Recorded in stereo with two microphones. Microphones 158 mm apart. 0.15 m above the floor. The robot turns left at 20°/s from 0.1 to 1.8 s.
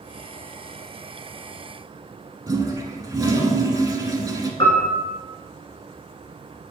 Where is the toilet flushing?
20° right (ahead or behind), 0.8 m.